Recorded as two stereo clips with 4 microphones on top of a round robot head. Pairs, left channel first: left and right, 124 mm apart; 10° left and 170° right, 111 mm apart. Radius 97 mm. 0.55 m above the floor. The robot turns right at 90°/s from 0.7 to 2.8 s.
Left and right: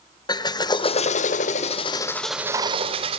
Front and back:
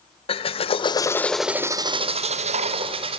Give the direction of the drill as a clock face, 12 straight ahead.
11 o'clock.